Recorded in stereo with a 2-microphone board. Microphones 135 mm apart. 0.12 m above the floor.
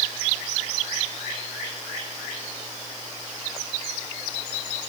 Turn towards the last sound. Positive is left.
No sound to turn to.